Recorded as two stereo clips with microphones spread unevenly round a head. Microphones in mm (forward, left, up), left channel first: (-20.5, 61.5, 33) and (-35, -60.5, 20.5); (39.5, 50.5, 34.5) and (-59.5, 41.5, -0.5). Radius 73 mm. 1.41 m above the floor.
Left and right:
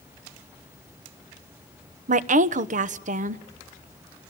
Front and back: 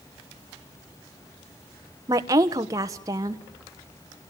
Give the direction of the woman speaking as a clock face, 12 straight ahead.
4 o'clock.